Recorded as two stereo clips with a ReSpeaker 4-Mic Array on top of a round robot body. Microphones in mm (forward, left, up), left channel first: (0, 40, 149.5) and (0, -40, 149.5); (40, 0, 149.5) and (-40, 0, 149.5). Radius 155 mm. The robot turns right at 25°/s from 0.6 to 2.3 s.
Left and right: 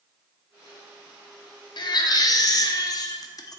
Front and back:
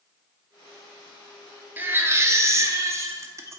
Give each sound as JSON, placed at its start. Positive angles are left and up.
{"t": 1.8, "sound": "a baby crying", "azimuth_deg": 115, "distance_m": 0.6}